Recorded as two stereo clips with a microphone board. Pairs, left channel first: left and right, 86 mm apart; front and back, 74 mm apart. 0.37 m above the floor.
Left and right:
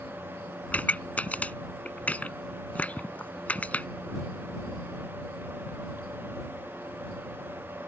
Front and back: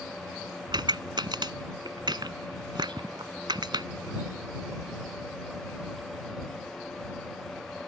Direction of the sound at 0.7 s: 165° left.